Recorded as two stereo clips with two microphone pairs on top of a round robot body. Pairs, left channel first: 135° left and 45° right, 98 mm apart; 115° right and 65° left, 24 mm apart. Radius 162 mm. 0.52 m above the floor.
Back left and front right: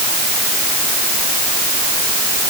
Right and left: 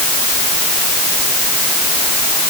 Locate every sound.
Only background noise.